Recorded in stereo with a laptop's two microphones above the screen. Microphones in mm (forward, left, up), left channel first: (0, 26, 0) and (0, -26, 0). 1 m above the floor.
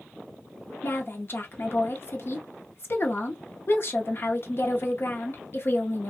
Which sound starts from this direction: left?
A woman speaking, at 0.8 s.